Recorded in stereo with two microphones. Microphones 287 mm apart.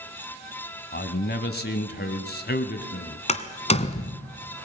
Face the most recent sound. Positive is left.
turn(degrees=25)  # may be behind; listen again after turning